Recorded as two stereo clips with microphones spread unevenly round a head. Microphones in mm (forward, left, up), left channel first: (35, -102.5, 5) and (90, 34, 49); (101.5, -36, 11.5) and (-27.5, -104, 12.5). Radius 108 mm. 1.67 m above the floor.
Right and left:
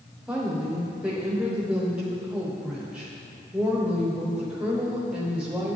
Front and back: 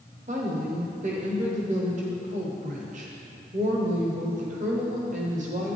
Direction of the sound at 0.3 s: 150° left.